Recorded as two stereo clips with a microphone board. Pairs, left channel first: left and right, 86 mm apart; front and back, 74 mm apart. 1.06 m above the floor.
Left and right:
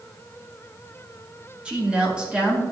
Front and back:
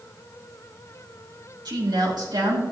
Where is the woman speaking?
165° right, 2.0 m.